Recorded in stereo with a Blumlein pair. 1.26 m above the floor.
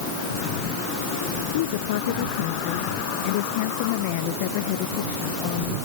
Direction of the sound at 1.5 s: 55° left.